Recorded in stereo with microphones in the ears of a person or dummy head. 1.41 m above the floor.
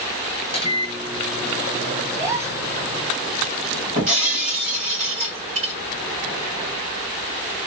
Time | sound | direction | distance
0.5 | a microwave | 25° left (ahead or behind) | 1.5 m
2.1 | a gasp | 45° right (ahead or behind) | 3.5 m
4.0 | breaking glass | 50° right (ahead or behind) | 3 m